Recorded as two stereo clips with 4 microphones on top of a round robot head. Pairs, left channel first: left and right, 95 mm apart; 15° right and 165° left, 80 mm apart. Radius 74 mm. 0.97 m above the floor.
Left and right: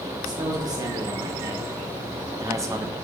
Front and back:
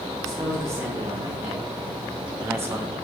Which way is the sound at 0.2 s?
135° right.